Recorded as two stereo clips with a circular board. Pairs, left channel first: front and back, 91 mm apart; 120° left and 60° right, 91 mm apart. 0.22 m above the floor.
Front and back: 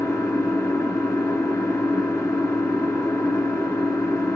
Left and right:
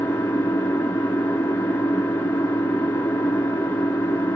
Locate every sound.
0.0 s an engine running: 55° left, 1.8 m